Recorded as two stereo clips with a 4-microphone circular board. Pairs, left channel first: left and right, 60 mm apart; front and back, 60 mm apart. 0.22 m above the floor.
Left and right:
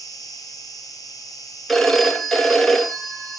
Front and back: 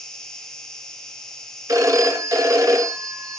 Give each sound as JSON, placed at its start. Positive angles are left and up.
{"t": 0.0, "sound": "an insect", "azimuth_deg": 80, "distance_m": 1.8}
{"t": 1.7, "sound": "a phone ringing", "azimuth_deg": 175, "distance_m": 1.9}